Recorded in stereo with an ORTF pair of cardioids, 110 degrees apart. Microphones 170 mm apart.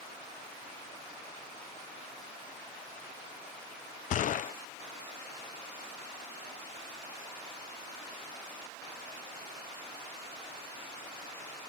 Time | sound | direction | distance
4.1 | a gunshot | 50° left | ?